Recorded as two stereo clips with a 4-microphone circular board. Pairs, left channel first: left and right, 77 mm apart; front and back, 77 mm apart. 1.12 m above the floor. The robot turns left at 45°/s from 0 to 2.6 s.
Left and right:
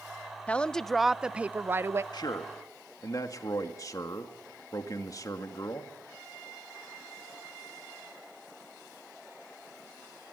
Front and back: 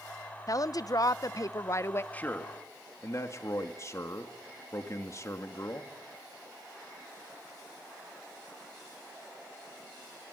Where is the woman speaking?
20° left, 0.6 m; by 2.0 s 50° right, 0.6 m.